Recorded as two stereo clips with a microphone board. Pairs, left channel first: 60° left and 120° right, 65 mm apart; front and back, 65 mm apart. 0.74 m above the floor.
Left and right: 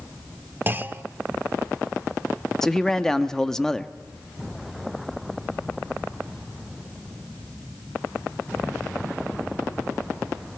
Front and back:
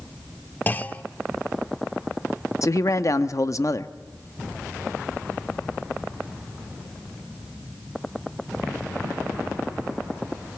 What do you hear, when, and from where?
0.7 s a clunk: 60° right, 0.7 m
2.6 s a man speaking: 20° right, 0.8 m